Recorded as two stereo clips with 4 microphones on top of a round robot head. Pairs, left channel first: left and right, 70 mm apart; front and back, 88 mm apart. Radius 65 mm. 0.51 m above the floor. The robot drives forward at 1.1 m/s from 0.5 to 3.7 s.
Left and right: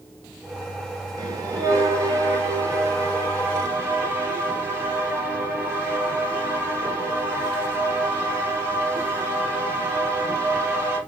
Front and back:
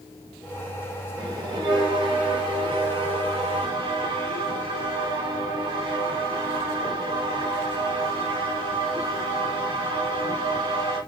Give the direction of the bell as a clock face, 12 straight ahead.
4 o'clock.